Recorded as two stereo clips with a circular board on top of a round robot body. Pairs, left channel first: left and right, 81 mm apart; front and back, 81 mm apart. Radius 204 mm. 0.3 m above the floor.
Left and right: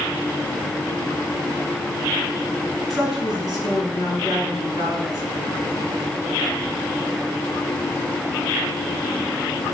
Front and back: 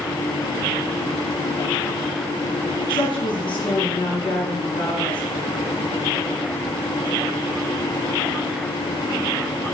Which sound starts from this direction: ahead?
A woman speaking, at 2.9 s.